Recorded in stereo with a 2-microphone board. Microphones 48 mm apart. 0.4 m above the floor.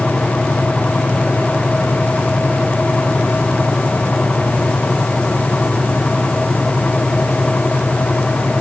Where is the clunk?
No clunk in this recording.